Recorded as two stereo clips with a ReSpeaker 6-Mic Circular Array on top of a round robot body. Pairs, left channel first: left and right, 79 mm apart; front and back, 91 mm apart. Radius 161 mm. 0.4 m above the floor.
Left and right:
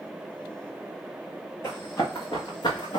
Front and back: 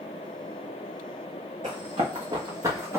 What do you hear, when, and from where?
1.6 s running footsteps: 155° left, 1.6 m; by 3.0 s 115° left, 1.3 m